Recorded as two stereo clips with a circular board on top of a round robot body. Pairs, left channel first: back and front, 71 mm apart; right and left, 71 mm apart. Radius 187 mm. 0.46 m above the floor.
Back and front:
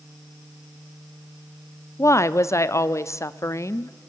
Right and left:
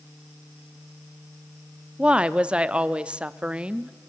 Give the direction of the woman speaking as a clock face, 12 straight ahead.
7 o'clock.